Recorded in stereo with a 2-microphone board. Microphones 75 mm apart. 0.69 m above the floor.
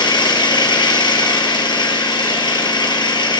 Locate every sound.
0.0 s an engine running: 70° left (ahead or behind), 3.5 m